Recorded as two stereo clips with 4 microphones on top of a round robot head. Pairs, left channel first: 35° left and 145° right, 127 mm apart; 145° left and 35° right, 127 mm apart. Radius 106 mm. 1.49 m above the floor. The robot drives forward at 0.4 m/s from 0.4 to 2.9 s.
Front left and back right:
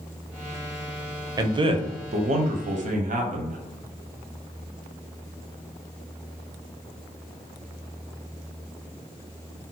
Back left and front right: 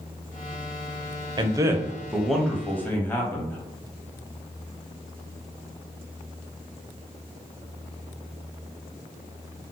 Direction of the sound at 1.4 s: 90° right.